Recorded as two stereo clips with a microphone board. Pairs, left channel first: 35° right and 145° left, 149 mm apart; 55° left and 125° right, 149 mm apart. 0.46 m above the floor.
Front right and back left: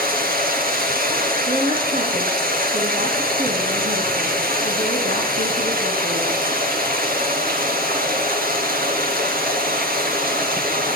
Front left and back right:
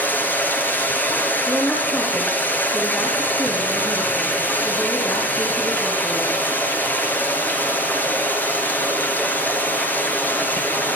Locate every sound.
0.0 s running water: 135° left, 3 m
1.5 s a woman speaking: 135° left, 5 m